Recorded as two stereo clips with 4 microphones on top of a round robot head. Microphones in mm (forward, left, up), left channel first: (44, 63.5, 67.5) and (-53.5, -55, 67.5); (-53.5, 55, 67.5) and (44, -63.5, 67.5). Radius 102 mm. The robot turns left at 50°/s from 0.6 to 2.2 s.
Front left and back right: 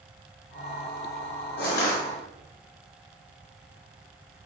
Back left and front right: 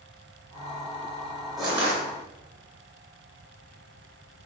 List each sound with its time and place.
1.6 s crushing: 40° left, 4 m; by 2.0 s 15° left, 4 m